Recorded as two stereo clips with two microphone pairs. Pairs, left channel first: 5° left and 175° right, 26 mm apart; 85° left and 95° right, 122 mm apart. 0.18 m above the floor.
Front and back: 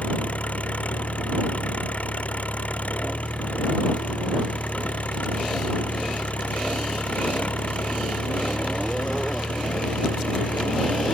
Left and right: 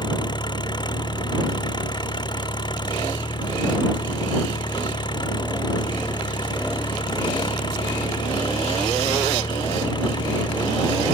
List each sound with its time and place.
0.0 s an engine running: 35° left